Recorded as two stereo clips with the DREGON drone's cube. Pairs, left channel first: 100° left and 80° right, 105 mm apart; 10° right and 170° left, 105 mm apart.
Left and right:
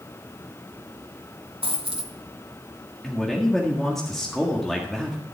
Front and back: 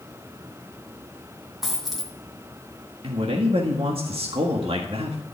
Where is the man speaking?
175° right, 1.6 m.